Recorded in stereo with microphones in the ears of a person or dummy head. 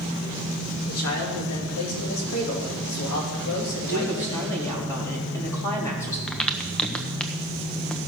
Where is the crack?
5° left (ahead or behind), 0.9 m.